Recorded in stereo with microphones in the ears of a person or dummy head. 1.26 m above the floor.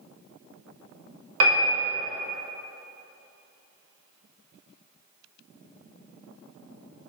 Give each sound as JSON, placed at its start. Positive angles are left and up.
{"t": 1.4, "sound": "a piano", "side_deg": -75, "distance_m": 0.6}